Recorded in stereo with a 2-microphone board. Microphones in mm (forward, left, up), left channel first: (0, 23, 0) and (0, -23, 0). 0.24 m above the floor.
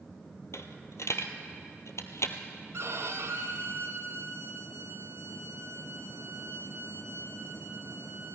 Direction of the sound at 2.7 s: 60° right (ahead or behind).